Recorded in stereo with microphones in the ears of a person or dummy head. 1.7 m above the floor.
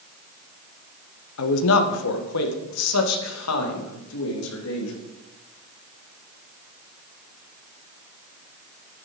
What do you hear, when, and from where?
1.4 s a man speaking: 75° left (ahead or behind), 1.4 m; by 5.0 s 85° left, 3.5 m